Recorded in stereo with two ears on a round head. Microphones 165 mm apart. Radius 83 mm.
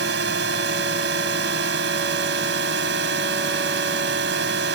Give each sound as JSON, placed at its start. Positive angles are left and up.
{"t": 0.0, "sound": "a drone", "side_deg": -65}